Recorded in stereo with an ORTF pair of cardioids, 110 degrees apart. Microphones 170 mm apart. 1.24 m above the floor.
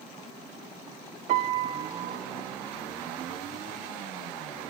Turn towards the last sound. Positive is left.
turn(degrees=-50)